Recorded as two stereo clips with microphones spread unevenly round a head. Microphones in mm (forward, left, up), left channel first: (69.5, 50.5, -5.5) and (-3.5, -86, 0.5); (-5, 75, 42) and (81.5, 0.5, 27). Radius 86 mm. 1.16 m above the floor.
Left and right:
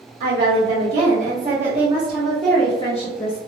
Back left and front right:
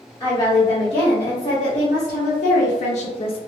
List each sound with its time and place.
0.2 s a woman speaking: 155° right, 1.4 m; by 3.4 s 100° left, 0.7 m